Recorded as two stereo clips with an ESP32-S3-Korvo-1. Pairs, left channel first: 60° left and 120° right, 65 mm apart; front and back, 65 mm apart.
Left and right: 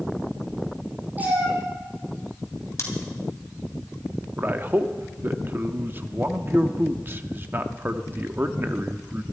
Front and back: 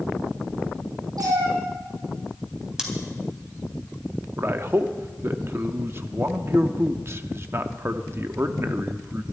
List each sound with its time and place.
1.2 s a cat meowing: 175° left, 7 m
2.8 s scissors: 100° left, 3.5 m
4.4 s a man speaking: 160° right, 0.8 m